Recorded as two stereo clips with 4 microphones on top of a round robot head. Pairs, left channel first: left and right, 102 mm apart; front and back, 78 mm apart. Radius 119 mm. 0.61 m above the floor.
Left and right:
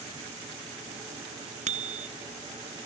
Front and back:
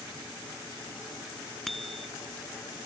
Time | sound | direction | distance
1.7 | a bicycle bell | 90° right | ?